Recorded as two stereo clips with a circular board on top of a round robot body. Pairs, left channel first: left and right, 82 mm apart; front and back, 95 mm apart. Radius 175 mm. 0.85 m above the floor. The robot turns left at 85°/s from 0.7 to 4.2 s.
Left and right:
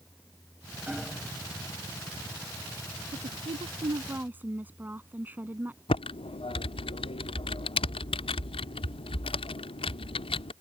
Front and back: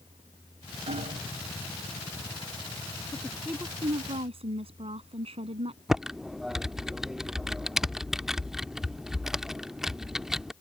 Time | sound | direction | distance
0.9 | hammering | 170° right | ?
3.1 | a woman speaking | 70° right | ?
5.9 | typing on a keyboard | 95° left | ?